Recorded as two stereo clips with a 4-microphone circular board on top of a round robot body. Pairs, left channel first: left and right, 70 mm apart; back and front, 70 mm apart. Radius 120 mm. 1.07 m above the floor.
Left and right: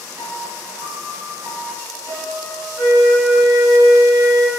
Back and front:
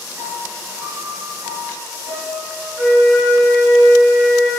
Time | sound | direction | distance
0.2 | a piano | 60° right | 6 m
2.8 | a flute | 60° right | 6.5 m